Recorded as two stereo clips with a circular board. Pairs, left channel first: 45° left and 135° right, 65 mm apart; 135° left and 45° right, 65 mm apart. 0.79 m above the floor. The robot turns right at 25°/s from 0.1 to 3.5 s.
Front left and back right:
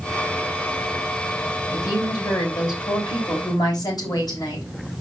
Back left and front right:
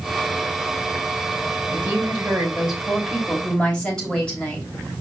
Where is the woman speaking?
15° left, 4 m; by 4.7 s 60° left, 4 m.